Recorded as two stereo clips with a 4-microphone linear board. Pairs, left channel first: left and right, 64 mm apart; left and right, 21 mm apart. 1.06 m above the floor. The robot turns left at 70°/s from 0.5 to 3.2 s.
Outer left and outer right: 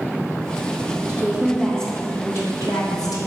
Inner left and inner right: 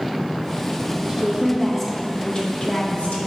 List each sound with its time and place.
1.1 s a woman speaking: 140° right, 1.3 m; by 3.3 s 70° left, 1.3 m